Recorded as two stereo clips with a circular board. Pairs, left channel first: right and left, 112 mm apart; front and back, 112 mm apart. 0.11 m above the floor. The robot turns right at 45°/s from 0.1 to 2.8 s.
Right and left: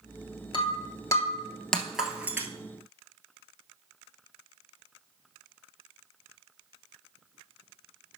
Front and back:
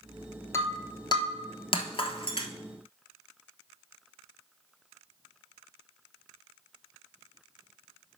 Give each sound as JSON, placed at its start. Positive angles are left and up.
{"t": 0.5, "sound": "breaking glass", "azimuth_deg": -60, "distance_m": 1.0}